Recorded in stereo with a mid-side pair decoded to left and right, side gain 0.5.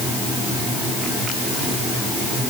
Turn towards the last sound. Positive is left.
No sound to turn to.